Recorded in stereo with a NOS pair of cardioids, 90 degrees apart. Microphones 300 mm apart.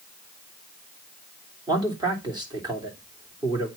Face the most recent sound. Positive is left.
turn(degrees=-15)